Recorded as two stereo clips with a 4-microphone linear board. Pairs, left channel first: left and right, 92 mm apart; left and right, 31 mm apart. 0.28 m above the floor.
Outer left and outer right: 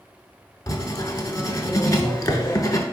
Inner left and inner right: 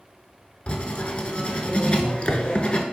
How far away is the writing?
About 0.5 m.